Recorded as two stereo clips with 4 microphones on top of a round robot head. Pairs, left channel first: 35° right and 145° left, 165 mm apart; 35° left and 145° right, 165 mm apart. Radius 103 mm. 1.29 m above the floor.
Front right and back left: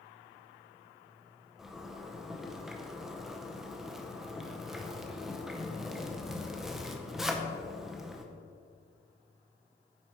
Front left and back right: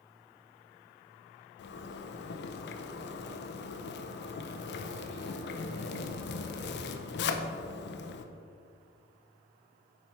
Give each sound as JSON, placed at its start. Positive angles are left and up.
{"t": 1.6, "sound": "a zipper", "azimuth_deg": 60, "distance_m": 0.6}